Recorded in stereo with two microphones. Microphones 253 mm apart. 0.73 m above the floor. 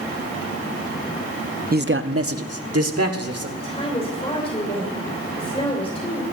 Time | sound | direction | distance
1.7 | a man speaking | 35° right (ahead or behind) | 0.5 m
3.6 | a woman speaking | 20° left (ahead or behind) | 2.5 m